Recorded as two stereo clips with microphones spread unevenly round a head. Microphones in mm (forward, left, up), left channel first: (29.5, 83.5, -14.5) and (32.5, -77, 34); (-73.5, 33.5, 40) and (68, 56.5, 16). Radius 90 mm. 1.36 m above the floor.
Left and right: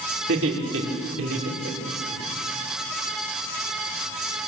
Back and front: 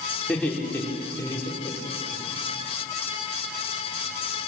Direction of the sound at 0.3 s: 90° right.